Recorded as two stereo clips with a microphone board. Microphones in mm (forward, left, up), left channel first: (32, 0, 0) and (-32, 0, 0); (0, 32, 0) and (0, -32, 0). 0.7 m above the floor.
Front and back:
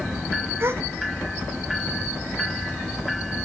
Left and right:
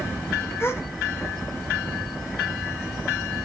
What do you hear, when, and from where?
0.6 s a gasp: 135° left, 1.3 m